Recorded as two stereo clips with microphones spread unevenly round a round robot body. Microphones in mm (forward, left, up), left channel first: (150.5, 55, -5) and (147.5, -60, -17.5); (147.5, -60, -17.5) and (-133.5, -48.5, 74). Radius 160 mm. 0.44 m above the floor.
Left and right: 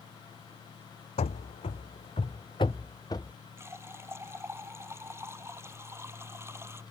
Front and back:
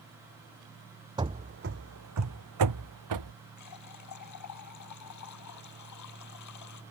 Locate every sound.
1.2 s running footsteps: 110° left; by 3.3 s 165° left
3.6 s a running tap: 25° right